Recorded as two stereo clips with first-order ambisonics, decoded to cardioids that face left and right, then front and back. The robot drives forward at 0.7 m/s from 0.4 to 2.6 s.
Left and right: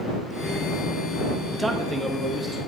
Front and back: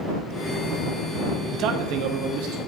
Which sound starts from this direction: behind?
A man speaking, at 1.5 s.